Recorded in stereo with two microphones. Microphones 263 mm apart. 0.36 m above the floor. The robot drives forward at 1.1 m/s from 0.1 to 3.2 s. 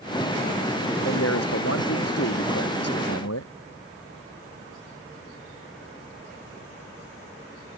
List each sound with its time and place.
1.0 s a man speaking: 60° left (ahead or behind); by 3.5 s 70° left (ahead or behind)